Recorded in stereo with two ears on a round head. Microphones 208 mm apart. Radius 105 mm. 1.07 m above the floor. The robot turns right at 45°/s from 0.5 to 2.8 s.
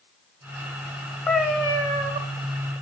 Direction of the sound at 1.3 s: Straight behind.